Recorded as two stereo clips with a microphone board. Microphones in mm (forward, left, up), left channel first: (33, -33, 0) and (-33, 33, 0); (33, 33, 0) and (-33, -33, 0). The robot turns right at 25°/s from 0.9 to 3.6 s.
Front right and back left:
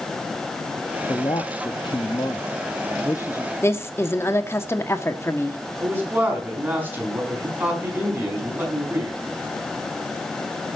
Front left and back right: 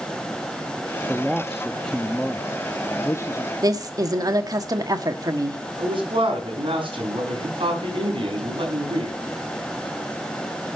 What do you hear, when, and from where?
1.1 s a man speaking: 55° right, 0.7 m; by 3.5 s 5° left, 0.7 m
3.6 s a woman speaking: 100° right, 1.4 m
5.8 s a man speaking: 155° right, 5 m